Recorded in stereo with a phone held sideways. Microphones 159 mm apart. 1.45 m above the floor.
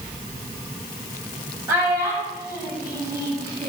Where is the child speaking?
20° right (ahead or behind), 4.5 m; by 3.7 s 25° right (ahead or behind), 5.5 m.